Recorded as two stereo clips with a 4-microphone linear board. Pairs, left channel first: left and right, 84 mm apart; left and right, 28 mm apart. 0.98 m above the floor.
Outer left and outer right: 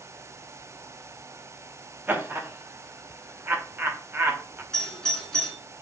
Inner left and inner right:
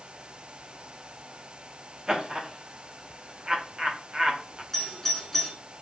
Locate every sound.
2.1 s laughter: 25° right (ahead or behind), 0.9 m
4.7 s a doorbell: 5° left (ahead or behind), 2 m